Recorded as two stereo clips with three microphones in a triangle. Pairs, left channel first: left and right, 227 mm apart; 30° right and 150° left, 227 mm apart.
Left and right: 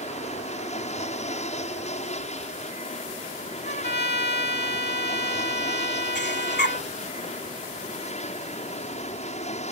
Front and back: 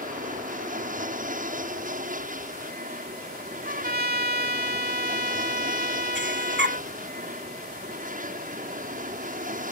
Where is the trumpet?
120° left.